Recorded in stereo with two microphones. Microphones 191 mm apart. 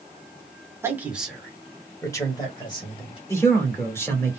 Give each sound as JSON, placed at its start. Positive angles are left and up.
{"t": 0.8, "sound": "a man speaking", "side_deg": -15, "distance_m": 1.3}
{"t": 3.3, "sound": "a man speaking", "side_deg": 15, "distance_m": 1.6}